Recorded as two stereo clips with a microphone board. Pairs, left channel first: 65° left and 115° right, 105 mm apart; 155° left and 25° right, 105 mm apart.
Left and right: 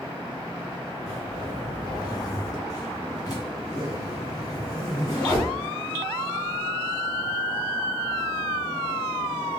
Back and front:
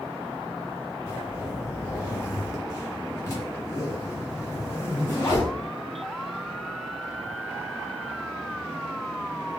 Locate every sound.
1.1 s a zipper: 110° left, 2 m